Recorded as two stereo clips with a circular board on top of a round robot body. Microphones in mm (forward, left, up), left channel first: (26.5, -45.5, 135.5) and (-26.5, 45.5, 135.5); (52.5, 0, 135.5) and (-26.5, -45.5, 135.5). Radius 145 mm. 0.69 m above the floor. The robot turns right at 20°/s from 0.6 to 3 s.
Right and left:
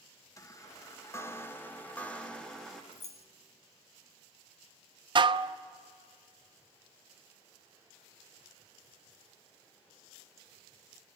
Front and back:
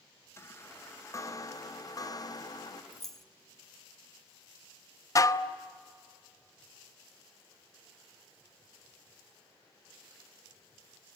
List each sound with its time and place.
0.4 s a chime: 15° right, 1.4 m; by 2.8 s 25° left, 1.4 m
2.9 s keys jangling: 55° right, 1.4 m
5.2 s dishes clattering: 80° left, 0.8 m